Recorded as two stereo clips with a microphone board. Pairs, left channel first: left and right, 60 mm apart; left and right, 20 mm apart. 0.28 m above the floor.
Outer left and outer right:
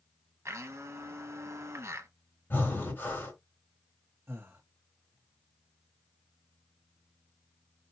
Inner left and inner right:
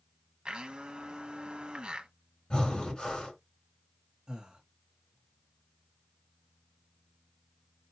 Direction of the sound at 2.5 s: 35° left (ahead or behind).